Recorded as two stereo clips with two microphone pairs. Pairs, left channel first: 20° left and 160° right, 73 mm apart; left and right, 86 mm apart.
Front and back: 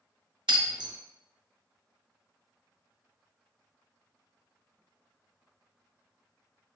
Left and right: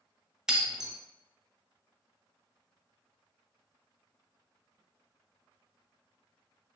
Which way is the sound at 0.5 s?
175° right.